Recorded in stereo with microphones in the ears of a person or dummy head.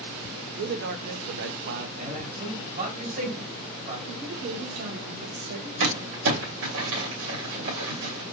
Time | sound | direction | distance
0.6 | a man speaking | 55° right (ahead or behind) | 0.8 m
2.0 | a man speaking | 50° right (ahead or behind) | 3 m
4.1 | a woman speaking | 60° right (ahead or behind) | 1.3 m
5.8 | crumpling | 80° right | 2.5 m